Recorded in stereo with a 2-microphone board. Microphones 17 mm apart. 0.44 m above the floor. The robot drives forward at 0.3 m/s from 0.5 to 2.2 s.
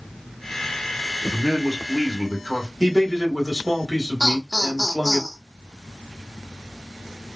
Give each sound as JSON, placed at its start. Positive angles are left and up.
{"t": 1.3, "sound": "a man speaking", "side_deg": -35, "distance_m": 0.9}
{"t": 2.8, "sound": "a man speaking", "side_deg": -35, "distance_m": 1.3}
{"t": 4.2, "sound": "laughter", "side_deg": 25, "distance_m": 0.8}